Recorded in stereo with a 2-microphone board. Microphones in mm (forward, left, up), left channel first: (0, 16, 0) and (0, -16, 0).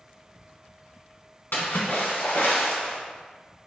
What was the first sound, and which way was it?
A splash, 80° left.